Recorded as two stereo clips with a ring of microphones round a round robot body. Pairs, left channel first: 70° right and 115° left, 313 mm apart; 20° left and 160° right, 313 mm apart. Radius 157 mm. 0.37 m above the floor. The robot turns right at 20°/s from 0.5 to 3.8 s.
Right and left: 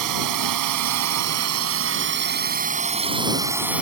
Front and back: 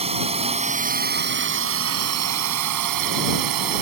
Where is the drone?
135° left; by 3.8 s 160° right.